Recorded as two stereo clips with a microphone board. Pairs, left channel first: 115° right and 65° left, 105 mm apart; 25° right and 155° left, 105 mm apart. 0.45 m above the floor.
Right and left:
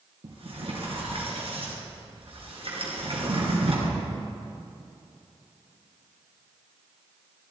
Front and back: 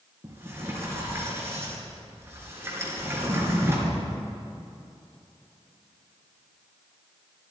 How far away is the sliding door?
About 3.5 m.